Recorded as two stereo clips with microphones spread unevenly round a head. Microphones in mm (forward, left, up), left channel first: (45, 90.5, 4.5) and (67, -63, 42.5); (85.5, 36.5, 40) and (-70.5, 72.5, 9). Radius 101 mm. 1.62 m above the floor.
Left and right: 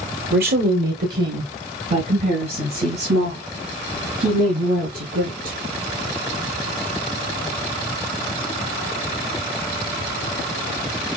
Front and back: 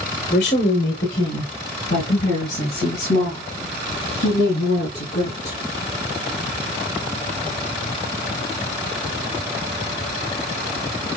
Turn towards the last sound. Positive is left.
turn(degrees=-55)